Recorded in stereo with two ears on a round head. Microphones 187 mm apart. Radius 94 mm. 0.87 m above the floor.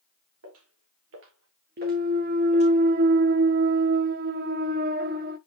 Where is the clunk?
45° right (ahead or behind), 0.8 m.